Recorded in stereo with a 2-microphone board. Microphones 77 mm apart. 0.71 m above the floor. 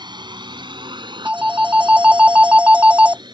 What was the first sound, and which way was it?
A drone, 70° right (ahead or behind).